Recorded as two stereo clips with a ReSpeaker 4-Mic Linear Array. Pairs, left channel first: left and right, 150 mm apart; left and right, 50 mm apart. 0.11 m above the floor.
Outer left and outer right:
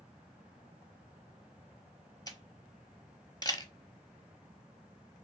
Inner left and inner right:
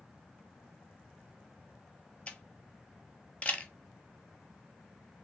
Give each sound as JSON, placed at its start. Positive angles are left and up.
{"t": 2.3, "sound": "a camera shutter", "side_deg": 25, "distance_m": 0.6}